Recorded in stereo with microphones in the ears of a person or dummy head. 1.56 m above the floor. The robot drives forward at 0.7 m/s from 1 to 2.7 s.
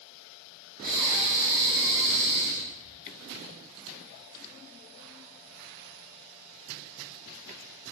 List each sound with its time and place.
0.8 s breathing: 25° right (ahead or behind), 0.9 m; by 3.0 s 10° right (ahead or behind), 2 m